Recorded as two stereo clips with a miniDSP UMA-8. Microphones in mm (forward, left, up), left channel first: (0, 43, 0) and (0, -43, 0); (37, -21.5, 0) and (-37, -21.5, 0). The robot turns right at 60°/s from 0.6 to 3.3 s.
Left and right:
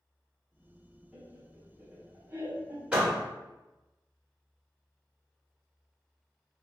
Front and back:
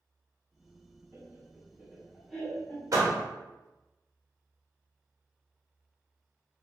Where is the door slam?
165° right, 0.9 m; by 3.2 s 150° right, 0.9 m.